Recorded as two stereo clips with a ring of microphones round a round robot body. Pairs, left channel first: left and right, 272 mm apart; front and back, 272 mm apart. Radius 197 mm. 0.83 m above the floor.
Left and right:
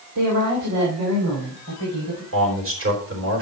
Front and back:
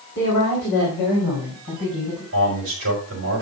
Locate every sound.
0.1 s a woman speaking: 60° right, 3 m; by 2.2 s 55° right, 5 m
2.3 s a man speaking: 125° right, 4 m